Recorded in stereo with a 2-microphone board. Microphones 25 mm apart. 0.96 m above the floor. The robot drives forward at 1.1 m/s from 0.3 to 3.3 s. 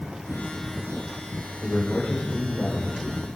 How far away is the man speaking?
About 4 m.